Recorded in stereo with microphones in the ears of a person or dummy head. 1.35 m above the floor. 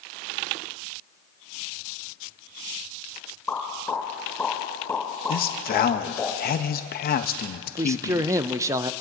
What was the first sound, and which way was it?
A pop, 10° left (ahead or behind).